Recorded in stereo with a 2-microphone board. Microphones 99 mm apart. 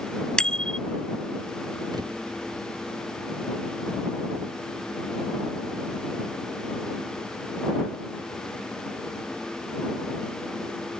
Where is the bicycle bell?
10° left (ahead or behind).